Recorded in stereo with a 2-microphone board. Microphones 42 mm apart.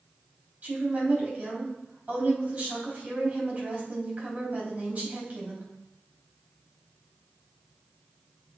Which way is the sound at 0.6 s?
35° right (ahead or behind).